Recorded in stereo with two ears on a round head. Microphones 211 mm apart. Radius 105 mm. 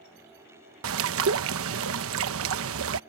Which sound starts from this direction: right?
A bird, at 0.8 s.